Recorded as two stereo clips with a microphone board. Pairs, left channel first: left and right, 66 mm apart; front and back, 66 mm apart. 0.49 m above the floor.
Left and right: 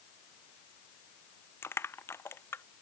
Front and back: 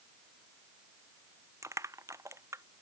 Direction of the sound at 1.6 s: 140° left.